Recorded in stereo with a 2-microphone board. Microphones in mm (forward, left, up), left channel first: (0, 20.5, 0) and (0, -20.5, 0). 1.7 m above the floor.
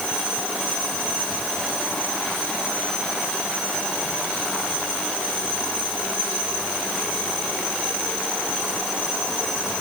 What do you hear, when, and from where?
Only background noise.